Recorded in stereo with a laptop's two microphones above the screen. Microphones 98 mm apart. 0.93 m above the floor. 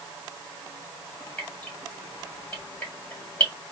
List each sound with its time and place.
1.4 s dripping: 15° left (ahead or behind), 1.6 m